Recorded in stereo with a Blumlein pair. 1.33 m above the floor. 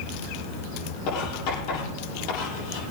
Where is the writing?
45° left, 7 m.